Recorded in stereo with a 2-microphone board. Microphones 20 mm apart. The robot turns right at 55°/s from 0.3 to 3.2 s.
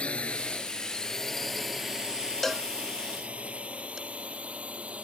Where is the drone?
55° left (ahead or behind); by 5.0 s 70° right (ahead or behind).